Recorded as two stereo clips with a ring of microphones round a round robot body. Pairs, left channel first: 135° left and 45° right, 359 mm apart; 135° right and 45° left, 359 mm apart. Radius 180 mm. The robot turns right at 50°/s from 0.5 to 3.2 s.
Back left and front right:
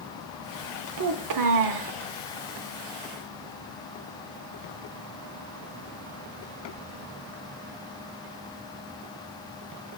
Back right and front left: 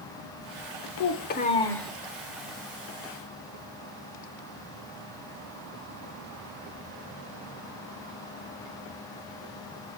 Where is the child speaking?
90° right, 0.7 m; by 1.9 s 45° right, 0.7 m.